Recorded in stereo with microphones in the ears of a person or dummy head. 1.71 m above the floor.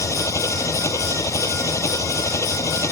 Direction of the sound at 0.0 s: 20° left (ahead or behind).